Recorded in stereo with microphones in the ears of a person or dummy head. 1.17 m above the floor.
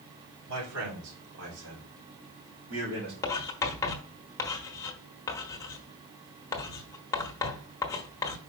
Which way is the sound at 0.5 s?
80° right.